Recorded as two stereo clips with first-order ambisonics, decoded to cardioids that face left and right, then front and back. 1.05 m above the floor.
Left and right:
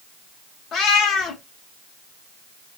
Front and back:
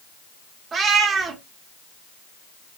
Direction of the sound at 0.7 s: 130° left.